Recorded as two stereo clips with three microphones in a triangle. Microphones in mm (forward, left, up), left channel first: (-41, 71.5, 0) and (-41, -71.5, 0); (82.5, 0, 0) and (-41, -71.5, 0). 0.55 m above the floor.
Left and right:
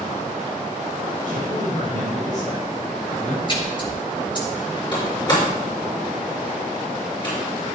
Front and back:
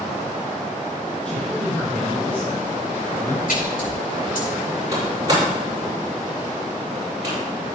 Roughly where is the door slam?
Behind left.